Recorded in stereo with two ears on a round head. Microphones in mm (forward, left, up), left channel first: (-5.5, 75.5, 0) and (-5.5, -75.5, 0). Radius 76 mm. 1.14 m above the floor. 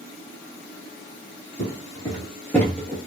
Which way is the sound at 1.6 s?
35° left (ahead or behind).